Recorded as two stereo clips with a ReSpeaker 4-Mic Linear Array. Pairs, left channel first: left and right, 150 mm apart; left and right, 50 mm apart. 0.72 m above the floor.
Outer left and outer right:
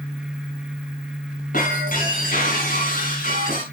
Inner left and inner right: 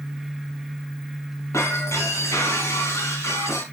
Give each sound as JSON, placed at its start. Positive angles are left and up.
{"t": 1.5, "sound": "breaking glass", "side_deg": 65, "distance_m": 4.0}